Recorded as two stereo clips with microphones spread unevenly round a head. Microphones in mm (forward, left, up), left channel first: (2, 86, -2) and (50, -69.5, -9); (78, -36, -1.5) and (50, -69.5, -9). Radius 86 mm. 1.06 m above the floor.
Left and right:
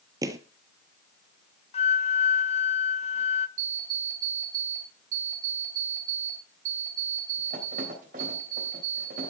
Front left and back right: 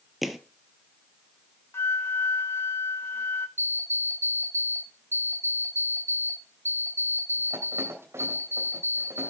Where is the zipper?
No zipper in this recording.